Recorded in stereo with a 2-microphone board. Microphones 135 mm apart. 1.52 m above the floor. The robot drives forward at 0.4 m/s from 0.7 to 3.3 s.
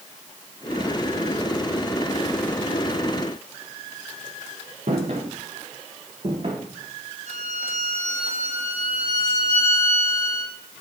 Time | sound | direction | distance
4.9 | footsteps | 65° right (ahead or behind) | 4.5 m
7.3 | a violin | 75° left (ahead or behind) | 7.5 m